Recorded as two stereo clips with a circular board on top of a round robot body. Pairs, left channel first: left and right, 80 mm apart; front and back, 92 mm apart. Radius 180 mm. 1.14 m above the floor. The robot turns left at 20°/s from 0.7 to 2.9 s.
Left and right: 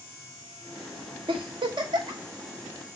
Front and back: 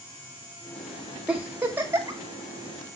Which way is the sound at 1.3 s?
100° right.